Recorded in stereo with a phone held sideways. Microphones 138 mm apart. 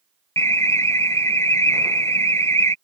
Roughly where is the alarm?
Centre.